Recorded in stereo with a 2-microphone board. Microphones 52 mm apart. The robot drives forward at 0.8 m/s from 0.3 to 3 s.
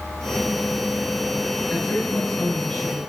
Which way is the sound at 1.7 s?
15° left (ahead or behind).